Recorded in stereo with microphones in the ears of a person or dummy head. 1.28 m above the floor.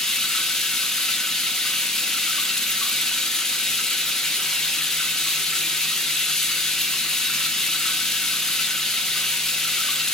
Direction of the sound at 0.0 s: 5° left (ahead or behind).